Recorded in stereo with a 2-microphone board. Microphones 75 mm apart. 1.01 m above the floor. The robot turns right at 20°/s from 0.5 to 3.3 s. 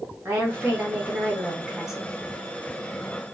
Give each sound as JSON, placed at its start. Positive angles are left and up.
{"t": 0.2, "sound": "a woman speaking", "azimuth_deg": -35, "distance_m": 1.6}